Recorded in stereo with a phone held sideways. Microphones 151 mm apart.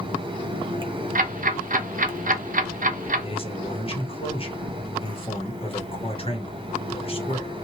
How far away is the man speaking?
About 1.1 m.